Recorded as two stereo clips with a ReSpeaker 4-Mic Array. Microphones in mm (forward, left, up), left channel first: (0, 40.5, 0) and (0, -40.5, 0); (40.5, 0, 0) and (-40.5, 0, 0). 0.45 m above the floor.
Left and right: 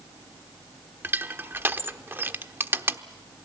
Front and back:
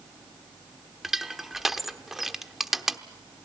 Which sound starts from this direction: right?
Crushing, at 1.0 s.